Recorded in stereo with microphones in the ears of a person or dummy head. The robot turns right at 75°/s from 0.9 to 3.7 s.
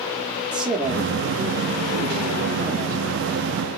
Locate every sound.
0.5 s a man speaking: 175° right, 0.8 m; by 3.3 s 5° left, 0.8 m